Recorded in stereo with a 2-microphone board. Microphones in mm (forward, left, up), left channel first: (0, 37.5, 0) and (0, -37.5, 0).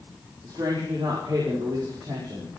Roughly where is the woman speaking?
Right.